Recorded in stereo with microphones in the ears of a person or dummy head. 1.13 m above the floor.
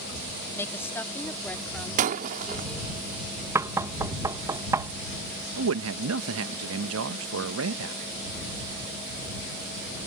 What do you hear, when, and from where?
0.6 s a woman speaking: 10° left (ahead or behind); by 3.0 s 5° left (ahead or behind)
2.0 s breaking glass: 45° right (ahead or behind)
3.5 s knocking: 15° right (ahead or behind)
5.6 s a man speaking: 75° right (ahead or behind)